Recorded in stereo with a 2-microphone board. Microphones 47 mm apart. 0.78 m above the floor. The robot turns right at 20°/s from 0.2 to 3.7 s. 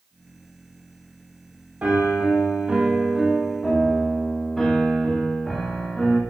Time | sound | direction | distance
1.8 | a piano | 30° right | 1.3 m